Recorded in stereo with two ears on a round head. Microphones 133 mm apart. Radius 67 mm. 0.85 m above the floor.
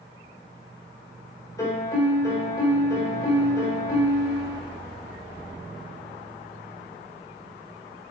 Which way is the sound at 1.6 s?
25° left (ahead or behind).